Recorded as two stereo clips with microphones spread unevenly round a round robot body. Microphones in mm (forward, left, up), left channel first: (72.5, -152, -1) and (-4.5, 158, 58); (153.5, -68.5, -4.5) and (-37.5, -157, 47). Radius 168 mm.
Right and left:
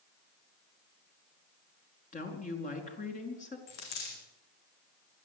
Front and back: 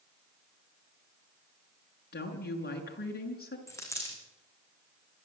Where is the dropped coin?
50° right, 8 m.